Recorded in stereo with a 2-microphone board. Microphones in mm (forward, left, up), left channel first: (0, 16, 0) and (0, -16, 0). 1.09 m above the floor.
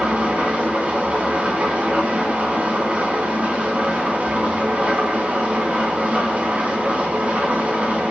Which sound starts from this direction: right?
An engine running, at 0.0 s.